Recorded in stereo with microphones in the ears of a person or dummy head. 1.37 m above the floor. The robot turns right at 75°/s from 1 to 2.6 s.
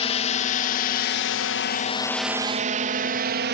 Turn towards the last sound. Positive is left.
turn(degrees=-50)  # may be behind; listen again after turning